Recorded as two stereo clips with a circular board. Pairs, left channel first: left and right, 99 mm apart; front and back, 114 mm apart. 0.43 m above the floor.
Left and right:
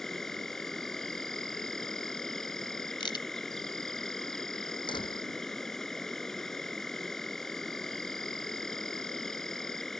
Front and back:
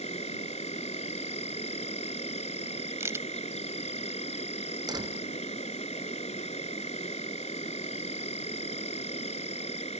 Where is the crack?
115° left.